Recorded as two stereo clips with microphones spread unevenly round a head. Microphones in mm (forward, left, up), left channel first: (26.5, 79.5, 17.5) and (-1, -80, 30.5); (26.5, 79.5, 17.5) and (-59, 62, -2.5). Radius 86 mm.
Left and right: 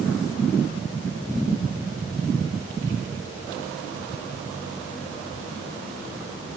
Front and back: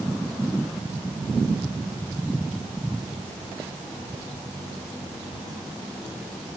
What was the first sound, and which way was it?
Only background noise.